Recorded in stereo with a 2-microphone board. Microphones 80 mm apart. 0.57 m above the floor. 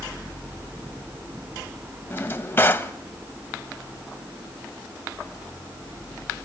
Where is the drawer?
25° left (ahead or behind), 1.0 m.